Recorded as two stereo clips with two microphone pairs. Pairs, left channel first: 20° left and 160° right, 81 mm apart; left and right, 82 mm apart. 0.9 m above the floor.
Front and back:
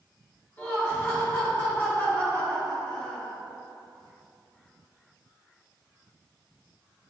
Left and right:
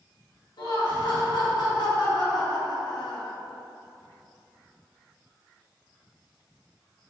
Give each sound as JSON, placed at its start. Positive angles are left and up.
{"t": 0.6, "sound": "laughter", "azimuth_deg": 80, "distance_m": 1.3}